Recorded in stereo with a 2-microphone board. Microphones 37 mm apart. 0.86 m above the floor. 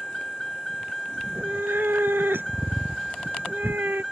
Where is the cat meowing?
75° right (ahead or behind).